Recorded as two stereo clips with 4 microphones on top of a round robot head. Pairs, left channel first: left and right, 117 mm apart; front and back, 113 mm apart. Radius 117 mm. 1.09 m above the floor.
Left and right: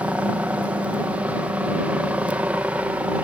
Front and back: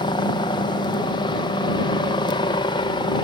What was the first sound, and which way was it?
A helicopter, 15° right.